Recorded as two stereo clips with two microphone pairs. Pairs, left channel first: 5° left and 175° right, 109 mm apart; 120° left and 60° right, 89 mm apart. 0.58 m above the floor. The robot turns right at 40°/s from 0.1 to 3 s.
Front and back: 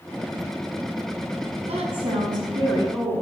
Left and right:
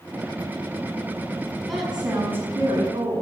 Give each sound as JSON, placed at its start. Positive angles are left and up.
{"t": 1.7, "sound": "a woman speaking", "azimuth_deg": -155, "distance_m": 5.5}